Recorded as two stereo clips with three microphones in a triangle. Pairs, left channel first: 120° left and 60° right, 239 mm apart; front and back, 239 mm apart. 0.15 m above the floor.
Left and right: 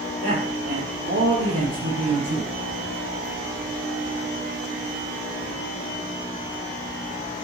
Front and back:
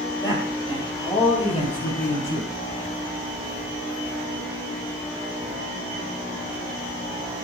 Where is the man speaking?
75° right, 5 m; by 2.5 s 55° right, 6.5 m.